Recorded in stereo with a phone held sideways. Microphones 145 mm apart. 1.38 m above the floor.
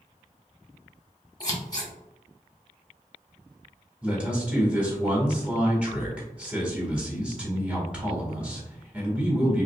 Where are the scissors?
25° left (ahead or behind), 1.0 m.